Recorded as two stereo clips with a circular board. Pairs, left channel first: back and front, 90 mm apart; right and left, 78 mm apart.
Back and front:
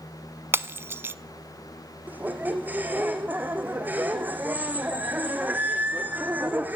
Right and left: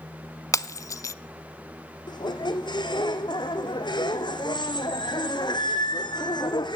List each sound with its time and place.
0.5 s breaking glass: 60° right, 0.6 m
2.1 s a squeak: 70° right, 1.8 m